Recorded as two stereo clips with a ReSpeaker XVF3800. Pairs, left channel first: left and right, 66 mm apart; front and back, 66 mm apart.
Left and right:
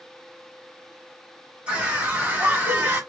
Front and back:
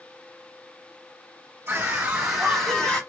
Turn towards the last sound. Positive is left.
turn(degrees=-55)